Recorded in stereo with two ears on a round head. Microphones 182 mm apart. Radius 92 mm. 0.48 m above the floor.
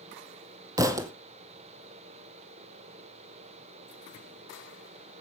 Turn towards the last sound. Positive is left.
turn(degrees=-15)  # may be behind; listen again after turning